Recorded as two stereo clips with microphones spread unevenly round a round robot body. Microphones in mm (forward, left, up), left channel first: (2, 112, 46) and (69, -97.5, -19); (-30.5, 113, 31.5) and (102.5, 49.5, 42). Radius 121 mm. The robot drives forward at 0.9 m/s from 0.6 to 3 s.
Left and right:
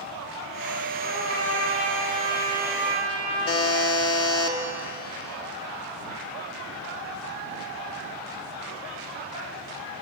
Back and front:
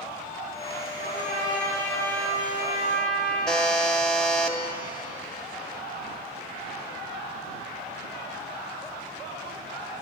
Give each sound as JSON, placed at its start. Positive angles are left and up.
{"t": 1.0, "sound": "a trumpet", "azimuth_deg": 175, "distance_m": 8.5}
{"t": 3.5, "sound": "a buzzer", "azimuth_deg": 70, "distance_m": 1.8}